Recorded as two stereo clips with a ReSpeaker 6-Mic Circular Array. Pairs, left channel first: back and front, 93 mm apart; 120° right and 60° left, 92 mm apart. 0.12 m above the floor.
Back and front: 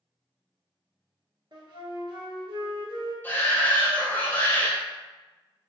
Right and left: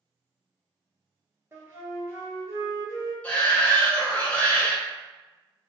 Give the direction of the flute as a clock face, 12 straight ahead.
12 o'clock.